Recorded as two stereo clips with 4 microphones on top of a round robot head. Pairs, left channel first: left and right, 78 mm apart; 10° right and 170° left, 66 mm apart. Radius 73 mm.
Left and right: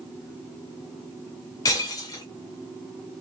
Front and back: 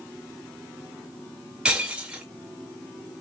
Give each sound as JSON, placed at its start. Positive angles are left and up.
{"t": 1.6, "sound": "breaking glass", "azimuth_deg": 105, "distance_m": 1.0}